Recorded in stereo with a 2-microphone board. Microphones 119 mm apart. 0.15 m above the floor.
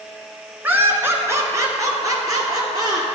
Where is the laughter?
15° right (ahead or behind), 1.4 m; by 3.1 s 35° right (ahead or behind), 3 m.